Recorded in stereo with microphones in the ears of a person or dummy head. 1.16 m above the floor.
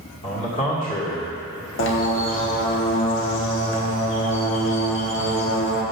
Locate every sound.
0.2 s a man speaking: 30° left (ahead or behind), 1.8 m
1.8 s a bird: 55° left (ahead or behind), 1.1 m